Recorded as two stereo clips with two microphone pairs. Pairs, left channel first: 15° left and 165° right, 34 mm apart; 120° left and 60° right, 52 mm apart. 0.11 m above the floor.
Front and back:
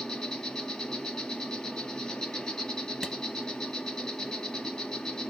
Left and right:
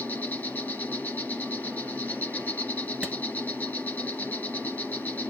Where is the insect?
85° left, 2.5 m.